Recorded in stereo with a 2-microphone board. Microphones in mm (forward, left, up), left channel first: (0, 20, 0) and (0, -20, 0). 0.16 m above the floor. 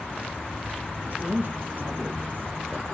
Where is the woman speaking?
40° right (ahead or behind), 5.5 m; by 2.9 s 35° right (ahead or behind), 3.5 m.